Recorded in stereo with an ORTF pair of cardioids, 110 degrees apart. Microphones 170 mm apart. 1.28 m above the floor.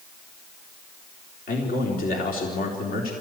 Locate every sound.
1.5 s a man speaking: 60° left, 4 m